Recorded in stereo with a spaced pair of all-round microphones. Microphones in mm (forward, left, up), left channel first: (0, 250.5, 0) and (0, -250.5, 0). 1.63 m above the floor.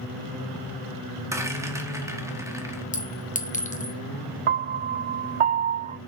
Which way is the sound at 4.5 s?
75° right (ahead or behind).